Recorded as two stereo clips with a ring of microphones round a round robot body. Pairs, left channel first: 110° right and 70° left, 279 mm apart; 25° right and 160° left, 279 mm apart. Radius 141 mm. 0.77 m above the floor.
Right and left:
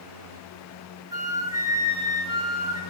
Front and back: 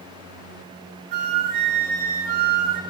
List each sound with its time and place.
1.1 s a flute: 145° left, 2.5 m